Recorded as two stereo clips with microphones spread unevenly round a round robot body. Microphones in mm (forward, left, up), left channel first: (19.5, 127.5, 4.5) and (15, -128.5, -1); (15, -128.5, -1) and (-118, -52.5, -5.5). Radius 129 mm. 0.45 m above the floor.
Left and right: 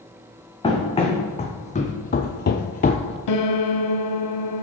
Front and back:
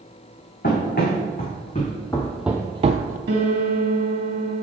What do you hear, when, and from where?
0.6 s running footsteps: 20° left, 1.7 m; by 3.2 s 155° left, 0.6 m
3.3 s a piano: 105° left, 0.7 m